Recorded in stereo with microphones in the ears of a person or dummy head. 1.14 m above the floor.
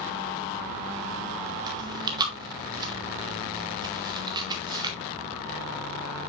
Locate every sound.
1.7 s chewing: 25° right (ahead or behind), 1.9 m